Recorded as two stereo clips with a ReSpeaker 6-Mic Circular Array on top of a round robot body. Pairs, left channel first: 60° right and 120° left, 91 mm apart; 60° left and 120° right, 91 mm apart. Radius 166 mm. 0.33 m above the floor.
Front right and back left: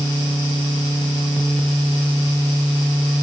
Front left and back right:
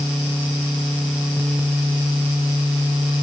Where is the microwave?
No microwave in this recording.